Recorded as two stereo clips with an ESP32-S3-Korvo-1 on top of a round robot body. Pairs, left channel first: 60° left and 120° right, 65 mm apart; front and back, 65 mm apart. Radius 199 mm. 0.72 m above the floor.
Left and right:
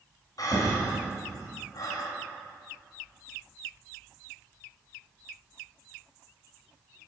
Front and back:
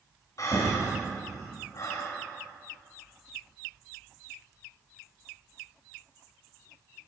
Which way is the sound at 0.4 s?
35° left.